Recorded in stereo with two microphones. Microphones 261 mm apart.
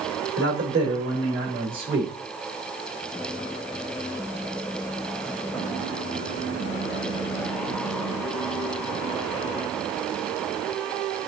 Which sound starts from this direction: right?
A man speaking, at 0.4 s.